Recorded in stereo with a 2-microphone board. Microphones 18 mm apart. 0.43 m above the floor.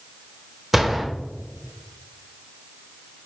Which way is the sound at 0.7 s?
15° right (ahead or behind).